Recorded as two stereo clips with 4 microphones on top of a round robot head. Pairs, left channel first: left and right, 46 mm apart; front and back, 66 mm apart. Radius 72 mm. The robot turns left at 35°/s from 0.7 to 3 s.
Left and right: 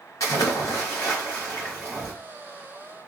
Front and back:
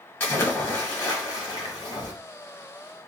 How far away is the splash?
About 1.2 m.